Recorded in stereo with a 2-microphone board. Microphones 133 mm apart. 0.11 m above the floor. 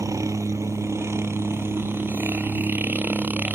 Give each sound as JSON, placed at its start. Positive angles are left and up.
{"t": 0.0, "sound": "a helicopter", "side_deg": -25}